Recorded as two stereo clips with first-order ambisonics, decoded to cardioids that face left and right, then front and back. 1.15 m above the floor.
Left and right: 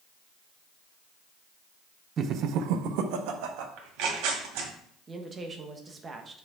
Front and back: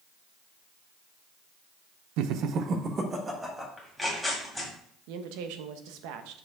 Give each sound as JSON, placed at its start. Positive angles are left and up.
{"t": 2.2, "sound": "laughter", "azimuth_deg": -155, "distance_m": 0.5}
{"t": 3.8, "sound": "tearing paper", "azimuth_deg": -90, "distance_m": 2.0}
{"t": 5.1, "sound": "a woman speaking", "azimuth_deg": -165, "distance_m": 0.9}